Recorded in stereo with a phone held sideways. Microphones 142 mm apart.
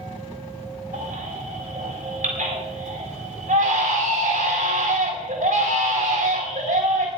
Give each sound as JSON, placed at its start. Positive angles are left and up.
{"t": 0.9, "sound": "a baby crying", "side_deg": -85, "distance_m": 7.5}